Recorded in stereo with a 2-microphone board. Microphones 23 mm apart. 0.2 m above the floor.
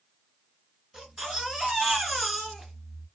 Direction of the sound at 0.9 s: 25° right (ahead or behind).